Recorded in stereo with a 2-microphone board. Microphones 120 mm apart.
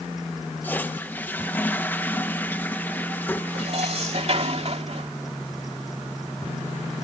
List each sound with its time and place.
0.6 s a toilet flushing: 15° left (ahead or behind)
3.5 s dishes clattering: 55° right (ahead or behind)